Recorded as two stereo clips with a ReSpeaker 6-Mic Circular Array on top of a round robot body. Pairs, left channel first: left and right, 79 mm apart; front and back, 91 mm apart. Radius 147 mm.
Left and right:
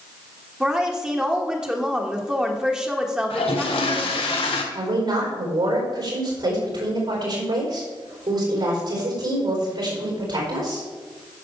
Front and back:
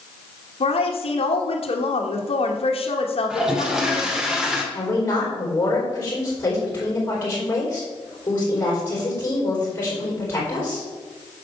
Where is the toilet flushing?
95° left, 1.3 m.